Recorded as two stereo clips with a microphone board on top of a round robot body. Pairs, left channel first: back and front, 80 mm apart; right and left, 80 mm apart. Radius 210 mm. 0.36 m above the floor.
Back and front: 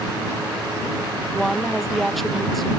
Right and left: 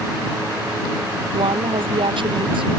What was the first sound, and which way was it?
A woman speaking, 90° left.